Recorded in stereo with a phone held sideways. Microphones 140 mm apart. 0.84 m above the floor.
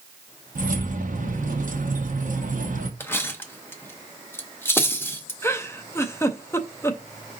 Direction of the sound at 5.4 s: 20° left (ahead or behind).